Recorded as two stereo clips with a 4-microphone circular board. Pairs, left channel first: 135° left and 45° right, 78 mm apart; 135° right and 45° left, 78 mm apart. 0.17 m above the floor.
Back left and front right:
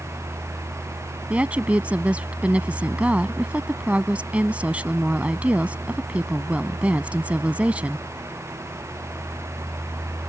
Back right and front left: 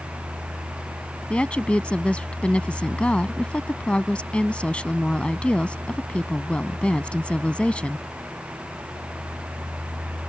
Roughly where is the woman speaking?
Right.